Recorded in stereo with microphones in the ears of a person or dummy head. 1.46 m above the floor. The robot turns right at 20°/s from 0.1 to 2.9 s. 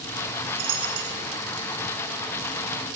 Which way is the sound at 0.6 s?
40° right (ahead or behind).